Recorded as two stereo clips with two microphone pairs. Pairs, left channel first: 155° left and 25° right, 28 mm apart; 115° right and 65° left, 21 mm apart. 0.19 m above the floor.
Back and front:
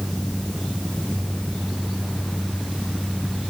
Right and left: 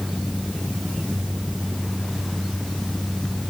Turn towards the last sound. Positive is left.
No sound to turn to.